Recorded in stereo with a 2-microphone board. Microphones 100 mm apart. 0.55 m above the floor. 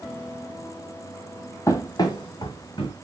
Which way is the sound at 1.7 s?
30° left (ahead or behind).